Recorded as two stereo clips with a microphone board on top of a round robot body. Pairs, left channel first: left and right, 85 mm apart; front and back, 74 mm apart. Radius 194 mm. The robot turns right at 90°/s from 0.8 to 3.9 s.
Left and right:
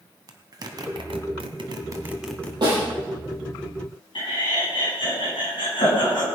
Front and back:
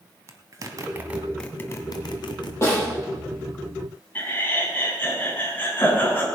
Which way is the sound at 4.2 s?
65° left.